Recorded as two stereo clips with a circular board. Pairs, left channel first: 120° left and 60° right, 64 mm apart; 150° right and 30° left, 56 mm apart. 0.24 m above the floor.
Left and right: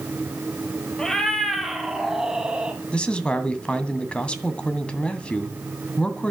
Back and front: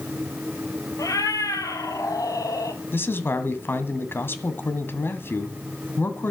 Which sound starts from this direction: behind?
A man speaking, at 2.9 s.